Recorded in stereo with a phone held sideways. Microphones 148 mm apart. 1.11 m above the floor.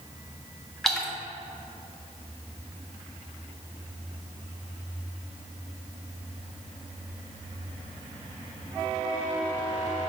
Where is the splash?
5° left (ahead or behind), 1.0 m.